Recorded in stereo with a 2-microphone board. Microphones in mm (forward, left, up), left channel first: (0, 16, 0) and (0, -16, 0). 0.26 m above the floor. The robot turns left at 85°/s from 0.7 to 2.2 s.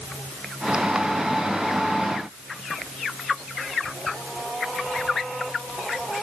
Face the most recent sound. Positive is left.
No sound to turn to.